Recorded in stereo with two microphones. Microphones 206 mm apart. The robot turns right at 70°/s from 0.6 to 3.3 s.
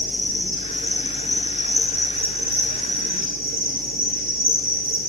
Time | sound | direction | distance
0.0 | an insect | 95° left | 2.5 m